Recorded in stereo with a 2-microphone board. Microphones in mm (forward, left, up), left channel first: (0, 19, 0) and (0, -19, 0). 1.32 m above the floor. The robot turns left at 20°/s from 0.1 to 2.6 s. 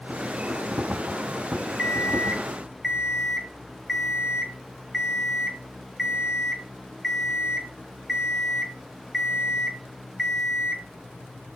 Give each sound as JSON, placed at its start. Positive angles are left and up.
{"t": 1.8, "sound": "an alarm clock", "side_deg": 20, "distance_m": 0.8}